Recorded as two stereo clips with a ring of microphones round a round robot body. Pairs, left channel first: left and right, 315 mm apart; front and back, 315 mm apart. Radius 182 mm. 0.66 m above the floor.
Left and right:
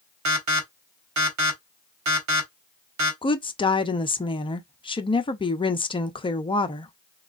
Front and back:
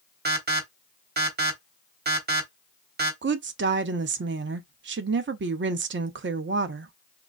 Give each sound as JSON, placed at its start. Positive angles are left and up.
{"t": 0.2, "sound": "an alarm", "azimuth_deg": -120, "distance_m": 1.5}
{"t": 3.2, "sound": "a woman speaking", "azimuth_deg": 155, "distance_m": 0.7}